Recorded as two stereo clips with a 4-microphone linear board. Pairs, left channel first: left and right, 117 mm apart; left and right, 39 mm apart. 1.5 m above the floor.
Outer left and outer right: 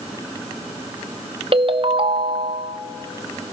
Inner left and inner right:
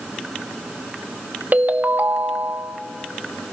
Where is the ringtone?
50° right (ahead or behind), 0.9 m.